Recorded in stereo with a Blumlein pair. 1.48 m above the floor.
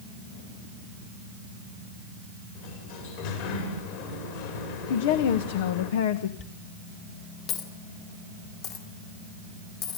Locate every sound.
2.5 s a sliding door: 50° left, 5.5 m
4.9 s a woman speaking: 55° left, 1.3 m
6.4 s a dropped coin: 40° left, 3 m